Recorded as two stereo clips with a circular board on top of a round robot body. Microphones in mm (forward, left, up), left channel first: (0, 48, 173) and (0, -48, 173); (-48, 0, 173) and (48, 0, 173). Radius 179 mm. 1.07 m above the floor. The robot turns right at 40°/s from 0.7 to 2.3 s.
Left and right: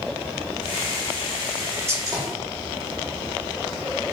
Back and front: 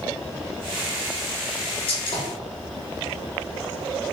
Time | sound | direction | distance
1.9 | a gunshot | 155° right | 0.8 m